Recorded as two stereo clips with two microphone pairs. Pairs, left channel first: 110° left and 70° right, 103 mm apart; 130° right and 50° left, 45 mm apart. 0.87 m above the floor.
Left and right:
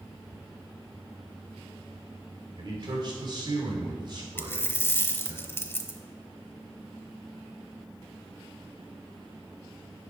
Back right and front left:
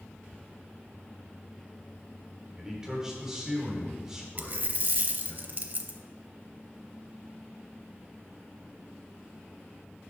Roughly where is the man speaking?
Ahead right.